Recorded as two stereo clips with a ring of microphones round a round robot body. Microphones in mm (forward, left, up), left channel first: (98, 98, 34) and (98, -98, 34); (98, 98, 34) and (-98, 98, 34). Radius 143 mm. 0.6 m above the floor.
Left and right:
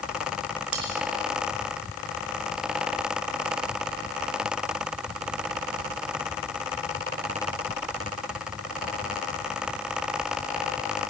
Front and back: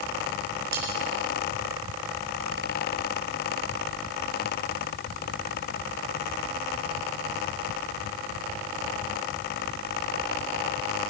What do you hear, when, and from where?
0.7 s cutlery clinking: 125° right, 4.5 m